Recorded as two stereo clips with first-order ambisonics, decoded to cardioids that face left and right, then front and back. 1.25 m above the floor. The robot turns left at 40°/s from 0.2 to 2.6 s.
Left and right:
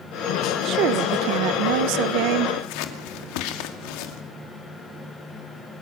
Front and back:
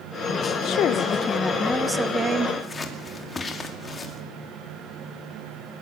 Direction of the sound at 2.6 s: 75° left.